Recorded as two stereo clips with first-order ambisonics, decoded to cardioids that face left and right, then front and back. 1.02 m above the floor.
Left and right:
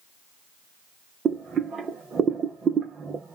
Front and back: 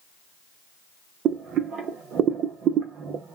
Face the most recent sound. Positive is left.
turn(degrees=-145)